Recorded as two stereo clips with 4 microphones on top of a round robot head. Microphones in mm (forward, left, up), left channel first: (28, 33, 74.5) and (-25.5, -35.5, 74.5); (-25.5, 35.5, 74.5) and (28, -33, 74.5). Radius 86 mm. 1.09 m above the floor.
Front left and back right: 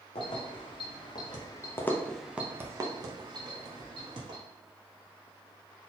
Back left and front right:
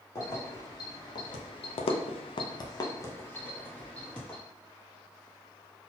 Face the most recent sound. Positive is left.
turn(degrees=-150)